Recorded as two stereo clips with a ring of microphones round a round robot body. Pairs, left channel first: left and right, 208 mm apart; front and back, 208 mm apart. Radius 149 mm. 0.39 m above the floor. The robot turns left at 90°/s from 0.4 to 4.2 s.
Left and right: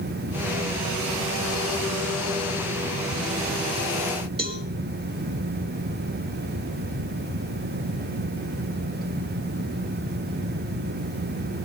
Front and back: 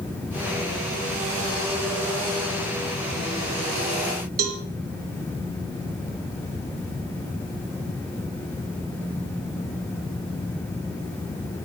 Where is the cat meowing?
No cat meowing in this recording.